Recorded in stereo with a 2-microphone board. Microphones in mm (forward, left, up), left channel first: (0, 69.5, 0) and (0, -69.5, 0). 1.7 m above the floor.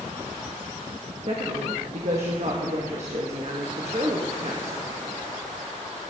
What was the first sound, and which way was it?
A woman speaking, 55° right (ahead or behind).